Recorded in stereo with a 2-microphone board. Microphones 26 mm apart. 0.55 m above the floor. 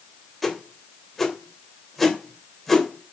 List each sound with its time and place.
0.4 s a whoosh: 5° left (ahead or behind), 2.5 m